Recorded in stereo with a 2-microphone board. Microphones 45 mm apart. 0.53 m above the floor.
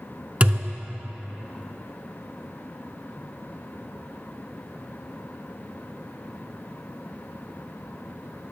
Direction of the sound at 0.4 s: 30° right (ahead or behind).